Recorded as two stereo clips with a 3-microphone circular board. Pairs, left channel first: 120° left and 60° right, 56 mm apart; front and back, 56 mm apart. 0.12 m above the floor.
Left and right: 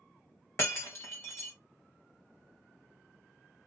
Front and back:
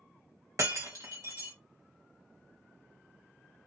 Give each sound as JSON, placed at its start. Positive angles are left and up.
{"t": 0.6, "sound": "breaking glass", "azimuth_deg": 160, "distance_m": 1.0}